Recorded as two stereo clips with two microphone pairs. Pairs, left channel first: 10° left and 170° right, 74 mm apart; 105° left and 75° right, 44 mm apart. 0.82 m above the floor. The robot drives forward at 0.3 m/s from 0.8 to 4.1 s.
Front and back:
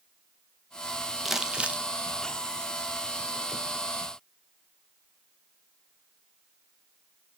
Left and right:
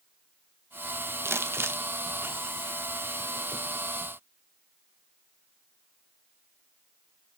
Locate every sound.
1.2 s crumpling: 90° right, 0.5 m; by 1.8 s 105° right, 0.5 m